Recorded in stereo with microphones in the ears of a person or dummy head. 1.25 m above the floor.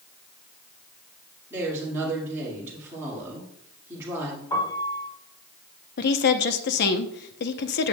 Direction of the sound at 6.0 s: 55° left (ahead or behind).